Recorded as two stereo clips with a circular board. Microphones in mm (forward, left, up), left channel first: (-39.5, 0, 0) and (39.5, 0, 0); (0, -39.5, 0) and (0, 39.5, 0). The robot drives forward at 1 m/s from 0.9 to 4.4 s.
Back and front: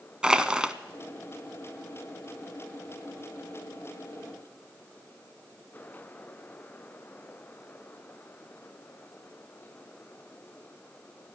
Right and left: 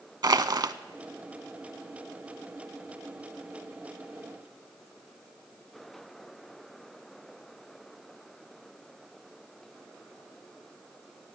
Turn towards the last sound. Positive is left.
turn(degrees=175)